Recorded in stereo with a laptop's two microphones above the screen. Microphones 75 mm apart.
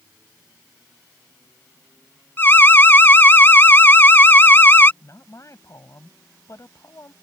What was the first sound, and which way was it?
An alarm, 30° left (ahead or behind).